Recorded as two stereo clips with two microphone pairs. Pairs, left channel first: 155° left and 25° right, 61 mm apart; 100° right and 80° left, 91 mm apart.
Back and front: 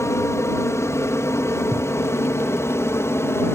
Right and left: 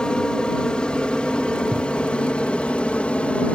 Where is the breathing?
25° right.